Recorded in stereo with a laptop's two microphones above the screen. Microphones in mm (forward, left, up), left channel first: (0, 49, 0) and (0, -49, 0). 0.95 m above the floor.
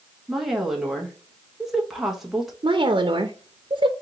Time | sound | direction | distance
0.3 | a woman speaking | centre (ahead or behind) | 1.0 m
2.6 | a woman speaking | 65° right (ahead or behind) | 0.6 m